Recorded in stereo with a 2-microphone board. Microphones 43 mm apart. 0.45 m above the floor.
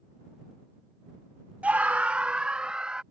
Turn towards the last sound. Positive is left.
turn(degrees=-20)  # may be behind; listen again after turning